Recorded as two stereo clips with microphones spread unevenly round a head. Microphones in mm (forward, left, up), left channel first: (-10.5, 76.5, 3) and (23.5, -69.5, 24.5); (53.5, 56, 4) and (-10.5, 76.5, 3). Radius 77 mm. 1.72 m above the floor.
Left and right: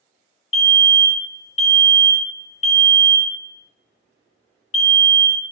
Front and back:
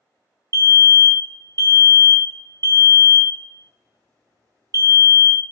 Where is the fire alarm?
140° left, 0.6 m.